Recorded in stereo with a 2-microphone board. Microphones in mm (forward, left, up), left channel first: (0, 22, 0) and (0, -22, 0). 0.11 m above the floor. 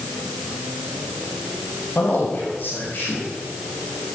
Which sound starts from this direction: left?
A man speaking, at 1.9 s.